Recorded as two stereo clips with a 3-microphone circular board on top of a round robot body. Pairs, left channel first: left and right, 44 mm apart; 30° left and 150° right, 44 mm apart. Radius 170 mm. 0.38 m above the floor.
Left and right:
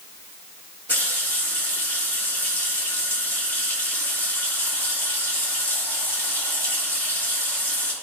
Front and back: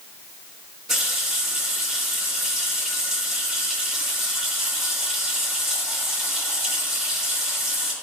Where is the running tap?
130° left, 4 m.